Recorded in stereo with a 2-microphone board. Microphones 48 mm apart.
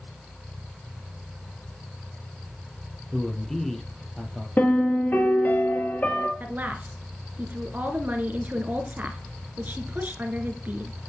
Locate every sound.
3.1 s a man speaking: 5° left (ahead or behind), 3.5 m
4.6 s a piano: 40° left (ahead or behind), 2 m
6.4 s a woman speaking: 40° right (ahead or behind), 2 m